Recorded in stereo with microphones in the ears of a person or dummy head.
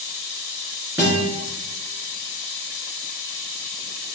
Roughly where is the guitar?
Centre.